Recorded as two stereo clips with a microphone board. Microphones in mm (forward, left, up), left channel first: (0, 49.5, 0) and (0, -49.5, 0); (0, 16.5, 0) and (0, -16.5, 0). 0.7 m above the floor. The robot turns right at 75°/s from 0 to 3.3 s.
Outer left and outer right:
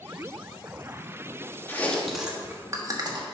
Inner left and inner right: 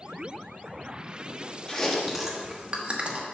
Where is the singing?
No singing in this recording.